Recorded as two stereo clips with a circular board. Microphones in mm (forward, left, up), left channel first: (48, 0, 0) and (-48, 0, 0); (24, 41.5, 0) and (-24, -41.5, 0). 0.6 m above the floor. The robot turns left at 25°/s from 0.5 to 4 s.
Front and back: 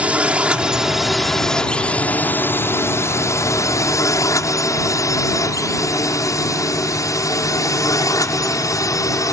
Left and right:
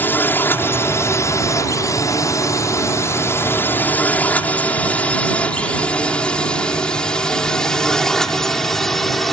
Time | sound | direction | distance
0.0 | a drone | 115° left | ?